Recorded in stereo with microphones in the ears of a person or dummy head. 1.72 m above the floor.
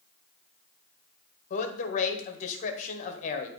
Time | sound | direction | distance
1.5 | a man speaking | 50° left (ahead or behind) | 1.1 m